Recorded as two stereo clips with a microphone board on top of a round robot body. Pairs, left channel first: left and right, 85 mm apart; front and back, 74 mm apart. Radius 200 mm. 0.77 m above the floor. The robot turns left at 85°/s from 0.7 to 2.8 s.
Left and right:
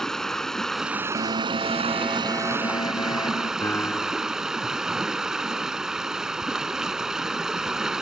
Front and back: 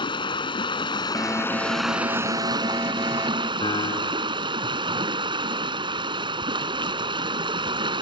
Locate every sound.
0.0 s running water: 5° left; by 8.0 s 175° right
1.1 s an alarm: 90° right; by 3.5 s 130° left
3.6 s a piano: 20° left